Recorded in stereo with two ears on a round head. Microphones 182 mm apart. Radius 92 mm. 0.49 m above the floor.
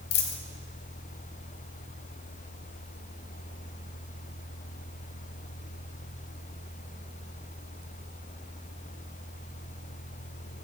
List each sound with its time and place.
0.1 s a dropped coin: 50° left (ahead or behind), 1.5 m